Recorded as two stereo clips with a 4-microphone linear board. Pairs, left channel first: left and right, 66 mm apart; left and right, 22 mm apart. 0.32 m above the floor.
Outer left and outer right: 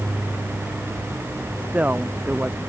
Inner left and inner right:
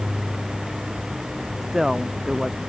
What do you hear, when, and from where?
1.6 s a woman speaking: 25° right (ahead or behind)